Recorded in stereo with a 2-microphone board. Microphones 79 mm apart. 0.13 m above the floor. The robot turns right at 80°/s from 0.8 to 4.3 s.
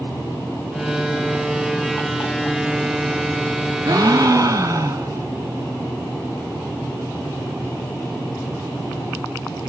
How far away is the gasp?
About 1.8 m.